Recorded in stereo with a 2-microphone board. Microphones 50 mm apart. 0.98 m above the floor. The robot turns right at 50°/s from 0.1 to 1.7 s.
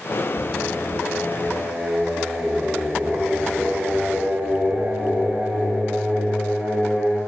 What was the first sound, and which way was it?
Singing, 160° left.